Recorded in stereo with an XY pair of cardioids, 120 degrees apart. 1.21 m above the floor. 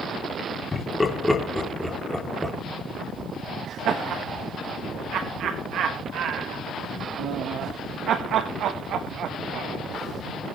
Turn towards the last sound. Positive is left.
turn(degrees=-65)